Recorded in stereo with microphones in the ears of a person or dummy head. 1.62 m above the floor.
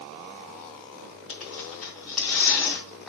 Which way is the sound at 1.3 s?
5° right (ahead or behind).